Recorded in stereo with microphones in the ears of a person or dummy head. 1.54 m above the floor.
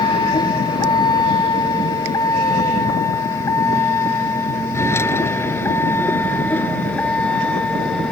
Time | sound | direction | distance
0.0 | a vehicle | 25° left (ahead or behind) | ?